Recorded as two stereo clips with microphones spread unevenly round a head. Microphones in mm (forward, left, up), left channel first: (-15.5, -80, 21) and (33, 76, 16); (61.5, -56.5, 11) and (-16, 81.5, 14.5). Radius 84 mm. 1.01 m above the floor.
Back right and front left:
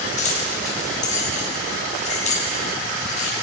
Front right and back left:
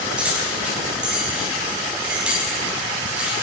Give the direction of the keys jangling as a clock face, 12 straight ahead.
5 o'clock.